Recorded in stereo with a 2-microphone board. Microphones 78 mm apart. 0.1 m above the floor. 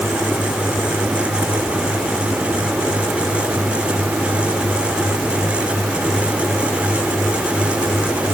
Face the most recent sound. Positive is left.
No sound to turn to.